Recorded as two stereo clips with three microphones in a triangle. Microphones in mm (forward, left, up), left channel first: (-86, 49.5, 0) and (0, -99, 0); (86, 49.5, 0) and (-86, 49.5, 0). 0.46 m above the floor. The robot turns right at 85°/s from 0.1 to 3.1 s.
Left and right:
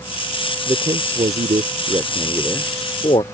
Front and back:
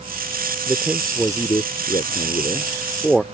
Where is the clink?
I don't hear a clink.